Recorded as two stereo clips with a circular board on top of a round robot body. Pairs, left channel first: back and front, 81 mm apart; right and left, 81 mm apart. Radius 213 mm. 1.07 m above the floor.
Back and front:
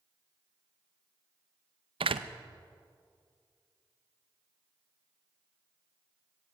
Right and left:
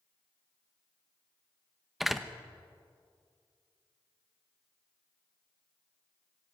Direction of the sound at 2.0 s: 5° left.